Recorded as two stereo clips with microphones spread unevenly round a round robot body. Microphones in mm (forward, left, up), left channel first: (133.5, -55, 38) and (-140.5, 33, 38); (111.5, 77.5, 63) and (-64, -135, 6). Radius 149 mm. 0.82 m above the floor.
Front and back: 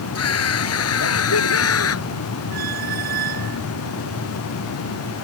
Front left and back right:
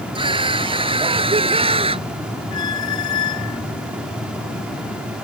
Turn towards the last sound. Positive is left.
turn(degrees=100)